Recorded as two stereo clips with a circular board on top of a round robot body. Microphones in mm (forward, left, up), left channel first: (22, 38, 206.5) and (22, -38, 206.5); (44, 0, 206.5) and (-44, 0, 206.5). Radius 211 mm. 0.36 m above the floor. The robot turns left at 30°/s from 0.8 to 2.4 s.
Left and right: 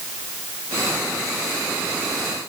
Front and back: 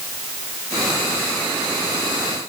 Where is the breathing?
I don't hear breathing.